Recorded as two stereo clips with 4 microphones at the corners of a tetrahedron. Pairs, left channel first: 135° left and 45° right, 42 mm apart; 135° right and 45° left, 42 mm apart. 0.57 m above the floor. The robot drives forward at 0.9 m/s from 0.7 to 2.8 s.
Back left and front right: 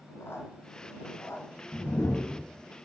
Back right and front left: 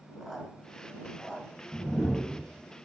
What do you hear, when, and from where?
0.2 s a squeak: 140° left, 1.8 m; by 1.4 s 150° left, 2.5 m
1.7 s a whoosh: 160° left, 1.0 m; by 2.4 s 165° left, 1.6 m